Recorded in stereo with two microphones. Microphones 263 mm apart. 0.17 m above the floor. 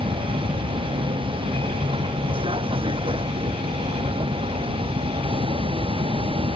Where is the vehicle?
20° right (ahead or behind).